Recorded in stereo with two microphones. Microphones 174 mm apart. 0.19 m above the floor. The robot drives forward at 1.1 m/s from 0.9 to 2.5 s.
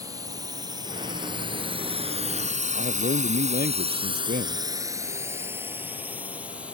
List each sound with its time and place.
0.0 s a drone: 20° right (ahead or behind); by 6.8 s 5° right (ahead or behind)
2.8 s a man speaking: 70° right (ahead or behind)